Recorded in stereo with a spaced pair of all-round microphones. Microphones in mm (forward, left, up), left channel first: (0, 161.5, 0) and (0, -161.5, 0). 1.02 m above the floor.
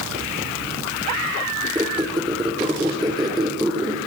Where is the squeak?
15° right (ahead or behind), 0.8 m.